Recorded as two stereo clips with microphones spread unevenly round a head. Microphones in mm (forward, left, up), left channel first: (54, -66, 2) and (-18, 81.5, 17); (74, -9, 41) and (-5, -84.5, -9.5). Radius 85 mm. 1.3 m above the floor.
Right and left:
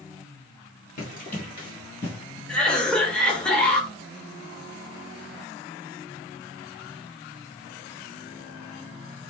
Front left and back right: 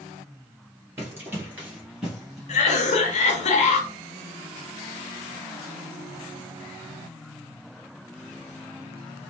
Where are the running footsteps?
50° right, 1.8 m; by 2.4 s 45° left, 1.4 m.